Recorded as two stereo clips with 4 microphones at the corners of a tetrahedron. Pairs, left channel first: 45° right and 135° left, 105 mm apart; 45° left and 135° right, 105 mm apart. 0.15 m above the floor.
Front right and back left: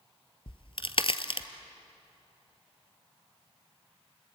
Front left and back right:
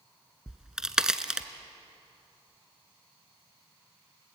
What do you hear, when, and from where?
0.5 s a crack: 50° right, 0.9 m